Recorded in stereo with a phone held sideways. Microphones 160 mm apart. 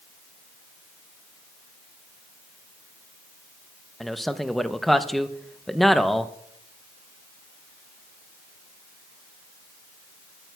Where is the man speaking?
Centre (ahead or behind), 0.6 m.